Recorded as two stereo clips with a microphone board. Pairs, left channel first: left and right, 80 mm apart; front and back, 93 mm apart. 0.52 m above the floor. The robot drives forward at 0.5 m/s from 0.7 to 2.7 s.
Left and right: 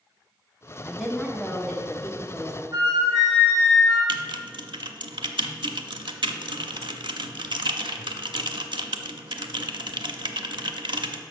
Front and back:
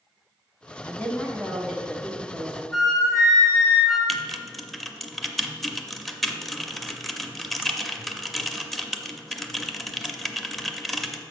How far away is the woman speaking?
About 0.9 m.